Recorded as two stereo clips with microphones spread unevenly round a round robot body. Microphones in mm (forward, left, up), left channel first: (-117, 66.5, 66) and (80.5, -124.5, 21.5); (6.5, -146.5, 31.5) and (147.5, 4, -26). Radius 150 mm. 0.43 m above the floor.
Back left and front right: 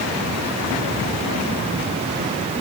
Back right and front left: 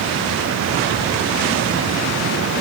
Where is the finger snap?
I don't hear a finger snap.